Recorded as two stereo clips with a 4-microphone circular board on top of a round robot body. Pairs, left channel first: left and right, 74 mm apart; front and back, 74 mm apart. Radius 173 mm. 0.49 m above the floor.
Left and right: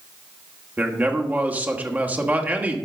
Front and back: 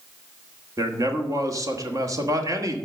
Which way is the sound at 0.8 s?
155° right.